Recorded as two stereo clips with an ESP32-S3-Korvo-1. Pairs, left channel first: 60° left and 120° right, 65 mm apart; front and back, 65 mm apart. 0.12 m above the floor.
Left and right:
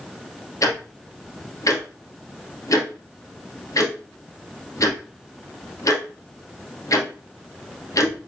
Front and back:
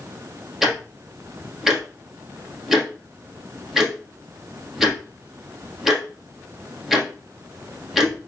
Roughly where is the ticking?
Left.